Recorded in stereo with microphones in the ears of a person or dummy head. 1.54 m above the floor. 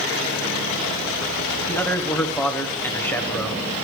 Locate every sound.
1.7 s a man speaking: 10° left (ahead or behind), 1.1 m